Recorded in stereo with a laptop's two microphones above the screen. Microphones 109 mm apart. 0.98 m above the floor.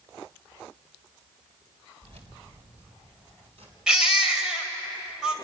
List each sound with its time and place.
2.0 s keys jangling: 80° right, 2.5 m; by 3.8 s 70° right (ahead or behind), 5 m
3.9 s a baby crying: 10° right (ahead or behind), 1.7 m